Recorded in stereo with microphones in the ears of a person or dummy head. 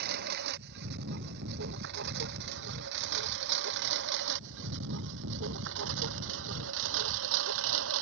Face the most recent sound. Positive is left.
turn(degrees=-80)